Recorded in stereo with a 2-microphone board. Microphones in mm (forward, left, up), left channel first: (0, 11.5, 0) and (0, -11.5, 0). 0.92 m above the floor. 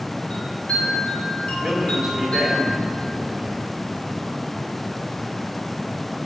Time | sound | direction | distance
0.3 | a chime | 50° left (ahead or behind) | 3 m
1.6 | a man speaking | 10° right (ahead or behind) | 3 m